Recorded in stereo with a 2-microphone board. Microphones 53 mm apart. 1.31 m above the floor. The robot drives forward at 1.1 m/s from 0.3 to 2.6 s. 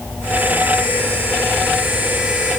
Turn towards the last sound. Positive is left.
No sound to turn to.